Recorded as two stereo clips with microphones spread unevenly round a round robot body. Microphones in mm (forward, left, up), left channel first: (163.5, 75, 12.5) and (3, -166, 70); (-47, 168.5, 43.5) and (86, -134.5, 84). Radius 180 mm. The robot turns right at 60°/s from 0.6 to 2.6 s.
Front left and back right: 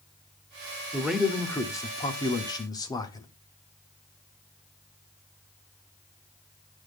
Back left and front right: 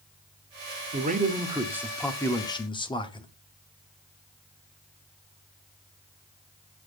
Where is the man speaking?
20° right, 0.8 m; by 3.3 s 80° left, 0.8 m.